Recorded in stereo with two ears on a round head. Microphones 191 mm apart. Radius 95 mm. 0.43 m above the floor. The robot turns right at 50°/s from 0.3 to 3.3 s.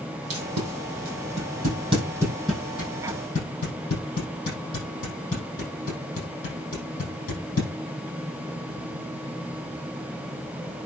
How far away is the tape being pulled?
About 7 m.